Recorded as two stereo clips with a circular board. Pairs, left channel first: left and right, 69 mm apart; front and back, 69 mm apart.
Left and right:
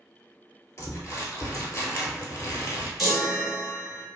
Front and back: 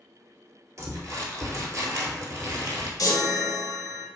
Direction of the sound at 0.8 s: 140° left.